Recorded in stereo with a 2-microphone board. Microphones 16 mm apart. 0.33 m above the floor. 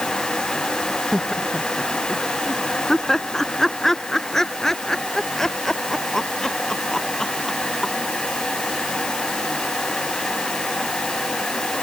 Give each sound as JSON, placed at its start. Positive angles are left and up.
{"t": 1.1, "sound": "laughter", "side_deg": 0}